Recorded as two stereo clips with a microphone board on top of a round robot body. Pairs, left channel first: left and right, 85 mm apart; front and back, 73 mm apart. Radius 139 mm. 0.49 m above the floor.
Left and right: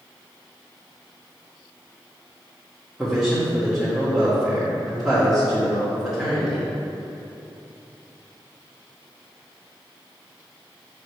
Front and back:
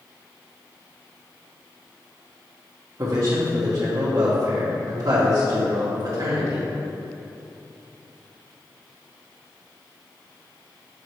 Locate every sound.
3.0 s a man speaking: 170° right, 1.8 m